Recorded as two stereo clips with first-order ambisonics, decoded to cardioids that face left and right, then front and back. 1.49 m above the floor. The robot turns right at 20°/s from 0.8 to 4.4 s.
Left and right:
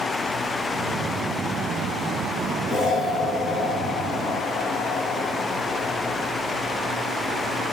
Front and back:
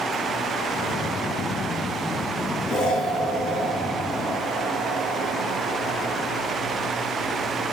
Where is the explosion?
Straight ahead, 2.5 m; by 6.3 s 35° left, 2.5 m.